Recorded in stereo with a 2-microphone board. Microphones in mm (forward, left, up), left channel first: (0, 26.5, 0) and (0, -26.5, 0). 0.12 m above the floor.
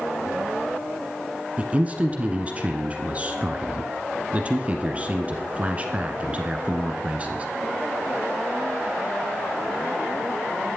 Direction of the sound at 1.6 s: 30° right (ahead or behind).